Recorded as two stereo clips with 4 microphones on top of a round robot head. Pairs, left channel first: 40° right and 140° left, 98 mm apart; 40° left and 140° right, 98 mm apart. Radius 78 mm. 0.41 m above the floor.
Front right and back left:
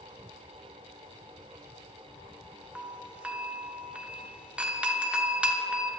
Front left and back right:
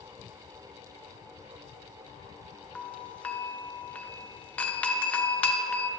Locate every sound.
2.8 s a doorbell: 85° left, 1.2 m